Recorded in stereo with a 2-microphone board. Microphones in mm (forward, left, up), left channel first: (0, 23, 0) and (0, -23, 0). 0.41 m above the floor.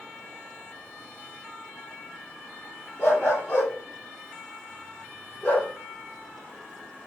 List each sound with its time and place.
3.0 s a dog barking: 50° left (ahead or behind), 6.5 m; by 5.7 s 35° left (ahead or behind), 7.5 m